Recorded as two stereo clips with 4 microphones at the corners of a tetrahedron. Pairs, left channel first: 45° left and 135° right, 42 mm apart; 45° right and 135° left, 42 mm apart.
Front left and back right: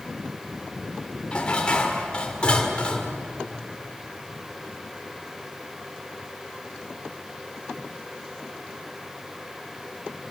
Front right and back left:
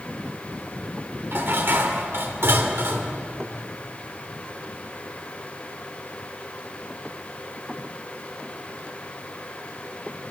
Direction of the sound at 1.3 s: 110° left.